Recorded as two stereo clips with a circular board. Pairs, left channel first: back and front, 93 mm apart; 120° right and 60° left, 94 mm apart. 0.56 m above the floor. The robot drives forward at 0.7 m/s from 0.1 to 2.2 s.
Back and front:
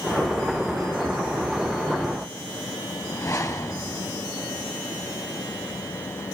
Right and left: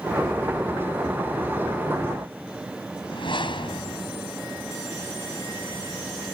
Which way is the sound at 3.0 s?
130° right.